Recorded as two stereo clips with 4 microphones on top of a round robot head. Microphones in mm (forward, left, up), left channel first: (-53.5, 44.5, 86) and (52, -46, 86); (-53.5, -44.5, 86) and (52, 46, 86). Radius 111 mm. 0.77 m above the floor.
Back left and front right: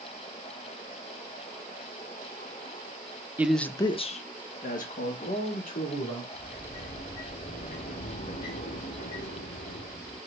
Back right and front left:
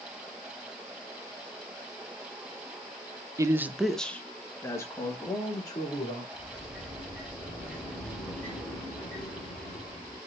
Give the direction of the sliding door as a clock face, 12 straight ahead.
7 o'clock.